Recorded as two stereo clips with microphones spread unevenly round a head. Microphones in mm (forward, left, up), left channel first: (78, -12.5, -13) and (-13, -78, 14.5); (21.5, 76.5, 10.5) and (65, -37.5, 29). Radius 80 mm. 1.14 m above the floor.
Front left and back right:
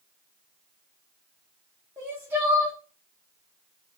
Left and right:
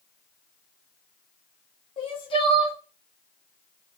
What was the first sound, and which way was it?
Crying, 130° left.